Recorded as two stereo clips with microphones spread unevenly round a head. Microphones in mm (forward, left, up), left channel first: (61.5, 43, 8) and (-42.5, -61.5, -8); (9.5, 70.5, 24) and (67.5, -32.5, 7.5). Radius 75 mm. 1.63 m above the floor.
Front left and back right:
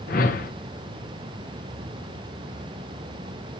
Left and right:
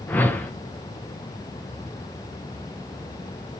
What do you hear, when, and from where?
0.1 s a whoosh: 50° left, 1.0 m